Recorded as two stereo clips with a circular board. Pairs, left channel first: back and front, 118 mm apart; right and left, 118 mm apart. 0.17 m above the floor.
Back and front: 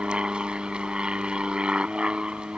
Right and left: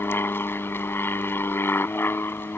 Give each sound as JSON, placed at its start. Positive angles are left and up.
{"t": 0.0, "sound": "an aircraft", "azimuth_deg": -65}